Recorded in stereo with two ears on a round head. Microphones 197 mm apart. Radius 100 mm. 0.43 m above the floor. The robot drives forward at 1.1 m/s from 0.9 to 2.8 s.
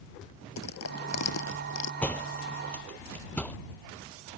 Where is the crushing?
75° left (ahead or behind); by 1.9 s 80° left.